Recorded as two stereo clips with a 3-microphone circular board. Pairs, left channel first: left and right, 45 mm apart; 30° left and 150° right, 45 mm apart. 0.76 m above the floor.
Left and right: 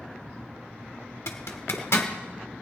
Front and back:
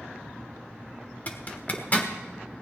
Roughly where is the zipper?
Left.